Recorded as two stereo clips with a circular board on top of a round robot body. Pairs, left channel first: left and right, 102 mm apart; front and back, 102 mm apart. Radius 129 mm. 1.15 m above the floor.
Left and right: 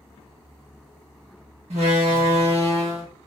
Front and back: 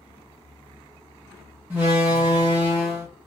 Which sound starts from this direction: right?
A door slam, at 1.7 s.